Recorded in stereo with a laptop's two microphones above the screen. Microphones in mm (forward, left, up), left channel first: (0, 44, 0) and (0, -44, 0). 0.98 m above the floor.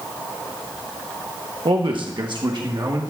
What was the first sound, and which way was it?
A man speaking, 70° right (ahead or behind).